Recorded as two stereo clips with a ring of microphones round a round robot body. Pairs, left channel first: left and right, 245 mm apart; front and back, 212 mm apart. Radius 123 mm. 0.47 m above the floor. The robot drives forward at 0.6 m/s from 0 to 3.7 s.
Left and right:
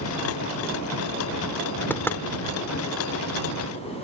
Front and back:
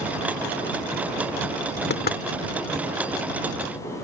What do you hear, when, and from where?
1.9 s knocking: 10° left